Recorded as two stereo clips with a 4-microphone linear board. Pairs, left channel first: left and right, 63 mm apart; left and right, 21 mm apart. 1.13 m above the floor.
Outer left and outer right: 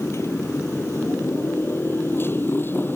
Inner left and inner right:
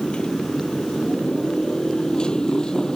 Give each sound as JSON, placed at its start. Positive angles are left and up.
{"t": 0.0, "sound": "a motorcycle", "side_deg": 45}